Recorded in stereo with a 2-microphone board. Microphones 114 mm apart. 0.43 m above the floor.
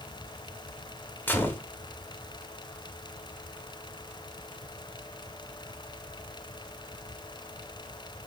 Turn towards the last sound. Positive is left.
turn(degrees=15)  # may be behind; listen again after turning